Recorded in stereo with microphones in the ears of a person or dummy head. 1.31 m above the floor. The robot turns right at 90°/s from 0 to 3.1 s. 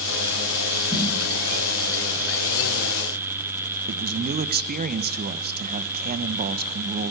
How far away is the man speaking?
About 1.0 m.